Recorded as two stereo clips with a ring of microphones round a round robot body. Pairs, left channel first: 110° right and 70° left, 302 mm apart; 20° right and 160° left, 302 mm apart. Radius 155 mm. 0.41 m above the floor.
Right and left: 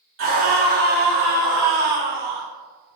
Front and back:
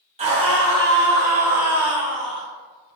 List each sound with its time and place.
0.2 s a scream: 95° left, 1.9 m; by 2.5 s 70° left, 2.5 m